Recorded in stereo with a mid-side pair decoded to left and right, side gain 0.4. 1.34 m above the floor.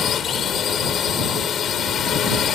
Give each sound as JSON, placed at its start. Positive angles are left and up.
{"t": 0.0, "sound": "a drone", "azimuth_deg": 60}